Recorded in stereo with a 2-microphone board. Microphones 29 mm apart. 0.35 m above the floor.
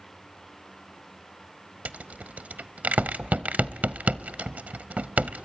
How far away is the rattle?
About 0.6 m.